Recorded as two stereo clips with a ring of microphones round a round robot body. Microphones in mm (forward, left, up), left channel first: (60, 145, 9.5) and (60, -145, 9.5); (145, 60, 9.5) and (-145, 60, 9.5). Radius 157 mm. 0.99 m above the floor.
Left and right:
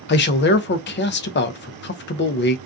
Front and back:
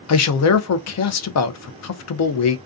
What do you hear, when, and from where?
0.1 s a man speaking: 35° left, 0.5 m